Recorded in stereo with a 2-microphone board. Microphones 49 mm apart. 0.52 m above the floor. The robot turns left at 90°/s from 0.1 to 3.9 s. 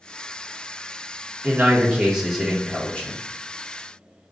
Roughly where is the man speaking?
Right.